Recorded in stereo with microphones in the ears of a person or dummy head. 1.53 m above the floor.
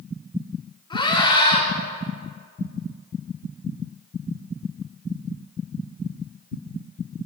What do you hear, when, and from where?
0.9 s a scream: 25° left (ahead or behind), 4.5 m